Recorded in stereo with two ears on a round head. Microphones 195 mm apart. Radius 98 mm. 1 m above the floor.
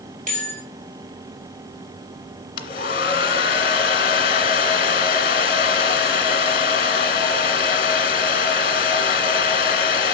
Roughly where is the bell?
Right.